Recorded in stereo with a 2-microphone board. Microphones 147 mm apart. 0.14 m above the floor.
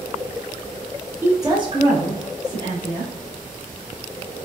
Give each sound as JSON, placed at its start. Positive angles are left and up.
{"t": 1.2, "sound": "a woman speaking", "side_deg": -15, "distance_m": 1.1}